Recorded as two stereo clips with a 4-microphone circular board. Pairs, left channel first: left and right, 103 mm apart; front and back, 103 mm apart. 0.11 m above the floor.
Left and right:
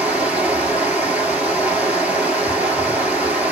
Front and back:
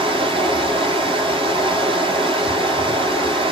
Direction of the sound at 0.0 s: 165° right.